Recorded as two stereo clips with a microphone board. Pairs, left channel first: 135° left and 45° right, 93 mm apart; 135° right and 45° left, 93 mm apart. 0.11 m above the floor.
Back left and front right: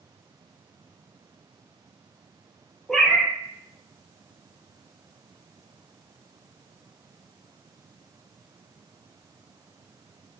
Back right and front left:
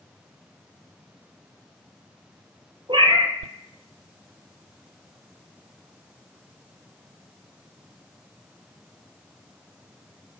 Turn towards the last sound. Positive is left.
turn(degrees=50)